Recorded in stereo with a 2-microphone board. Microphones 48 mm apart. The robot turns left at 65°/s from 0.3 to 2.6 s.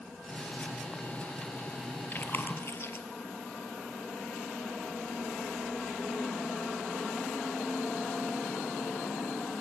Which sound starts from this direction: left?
Chewing, at 2.1 s.